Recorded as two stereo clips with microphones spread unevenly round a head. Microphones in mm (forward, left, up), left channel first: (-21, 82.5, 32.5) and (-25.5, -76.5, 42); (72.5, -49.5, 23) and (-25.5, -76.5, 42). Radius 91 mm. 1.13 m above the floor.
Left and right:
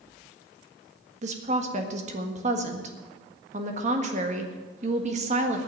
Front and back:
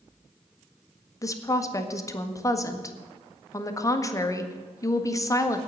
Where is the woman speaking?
40° right, 1.7 m.